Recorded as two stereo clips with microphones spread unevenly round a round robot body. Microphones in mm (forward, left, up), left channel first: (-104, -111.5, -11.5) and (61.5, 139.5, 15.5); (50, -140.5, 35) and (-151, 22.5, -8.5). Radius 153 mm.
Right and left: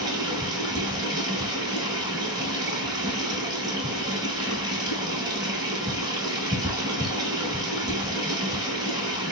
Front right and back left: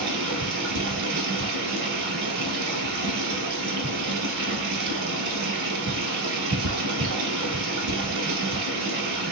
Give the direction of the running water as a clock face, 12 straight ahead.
8 o'clock.